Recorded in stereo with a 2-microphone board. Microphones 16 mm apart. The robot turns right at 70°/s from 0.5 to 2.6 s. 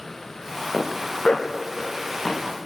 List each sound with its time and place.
0.7 s a zipper: 50° left (ahead or behind), 6.5 m; by 2.5 s 5° left (ahead or behind), 6.5 m